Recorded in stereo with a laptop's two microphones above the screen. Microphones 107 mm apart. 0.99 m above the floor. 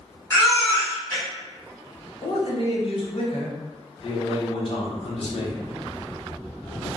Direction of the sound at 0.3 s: 25° left (ahead or behind).